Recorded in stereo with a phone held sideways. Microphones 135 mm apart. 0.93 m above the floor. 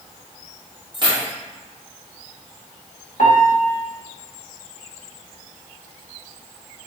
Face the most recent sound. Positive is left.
turn(degrees=70)  # may be behind; listen again after turning